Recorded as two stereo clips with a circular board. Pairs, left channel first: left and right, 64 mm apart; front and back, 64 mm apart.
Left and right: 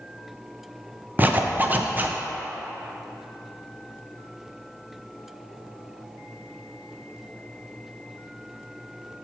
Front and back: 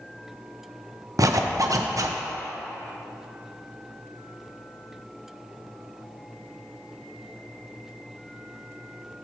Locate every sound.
1.2 s a zipper: 150° right, 0.6 m